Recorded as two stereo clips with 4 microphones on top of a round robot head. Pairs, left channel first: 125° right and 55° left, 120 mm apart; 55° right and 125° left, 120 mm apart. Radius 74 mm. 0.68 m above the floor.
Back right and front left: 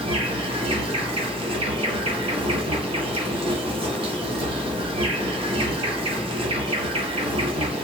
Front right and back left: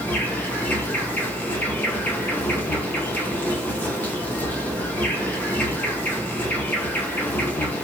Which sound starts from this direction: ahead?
An insect, at 0.0 s.